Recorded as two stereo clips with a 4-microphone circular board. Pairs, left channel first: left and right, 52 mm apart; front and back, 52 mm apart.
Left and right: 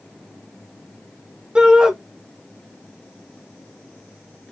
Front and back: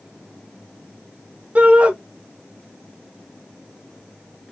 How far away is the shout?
About 0.9 m.